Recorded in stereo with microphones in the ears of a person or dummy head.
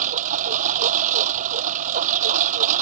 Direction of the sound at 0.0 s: 40° right (ahead or behind).